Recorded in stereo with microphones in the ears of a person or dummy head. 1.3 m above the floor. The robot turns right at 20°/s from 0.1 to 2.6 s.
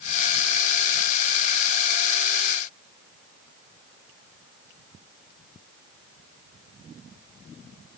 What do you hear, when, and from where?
Only background noise.